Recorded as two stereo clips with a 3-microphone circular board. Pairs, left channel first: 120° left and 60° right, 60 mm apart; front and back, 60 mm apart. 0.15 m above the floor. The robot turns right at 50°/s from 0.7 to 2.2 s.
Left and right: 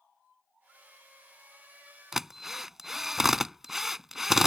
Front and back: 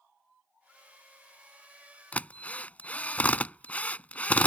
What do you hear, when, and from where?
2.1 s a drill: 10° left; by 4.5 s 15° left